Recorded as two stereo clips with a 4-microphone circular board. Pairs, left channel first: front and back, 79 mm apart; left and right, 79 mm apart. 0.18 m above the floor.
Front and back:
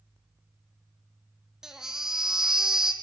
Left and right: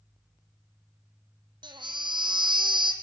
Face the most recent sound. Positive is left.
turn(degrees=-100)